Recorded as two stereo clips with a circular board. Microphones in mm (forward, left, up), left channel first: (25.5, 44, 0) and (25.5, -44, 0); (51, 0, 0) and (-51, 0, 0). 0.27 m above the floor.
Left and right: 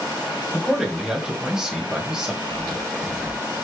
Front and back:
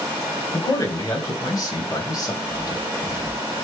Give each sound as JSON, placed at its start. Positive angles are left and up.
{"t": 0.5, "sound": "a man speaking", "azimuth_deg": -15, "distance_m": 1.3}
{"t": 2.4, "sound": "chewing", "azimuth_deg": 45, "distance_m": 1.6}